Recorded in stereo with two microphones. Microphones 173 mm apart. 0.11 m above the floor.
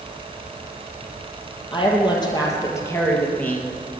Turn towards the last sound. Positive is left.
turn(degrees=5)  # may be behind; listen again after turning